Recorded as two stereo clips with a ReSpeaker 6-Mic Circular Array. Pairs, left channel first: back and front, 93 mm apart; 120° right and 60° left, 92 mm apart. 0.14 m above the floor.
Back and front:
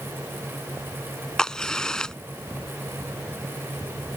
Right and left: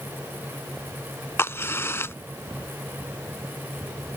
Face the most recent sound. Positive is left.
turn(degrees=-105)